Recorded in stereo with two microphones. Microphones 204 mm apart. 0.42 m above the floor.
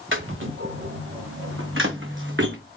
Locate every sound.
0.1 s footsteps: 70° right (ahead or behind), 2 m; by 2.5 s 60° right (ahead or behind), 1.7 m